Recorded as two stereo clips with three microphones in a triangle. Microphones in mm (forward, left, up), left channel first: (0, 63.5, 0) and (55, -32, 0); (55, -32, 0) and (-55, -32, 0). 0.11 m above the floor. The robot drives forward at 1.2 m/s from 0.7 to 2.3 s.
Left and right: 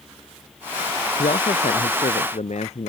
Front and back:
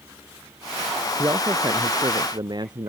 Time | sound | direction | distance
1.2 | a man speaking | 115° left | ?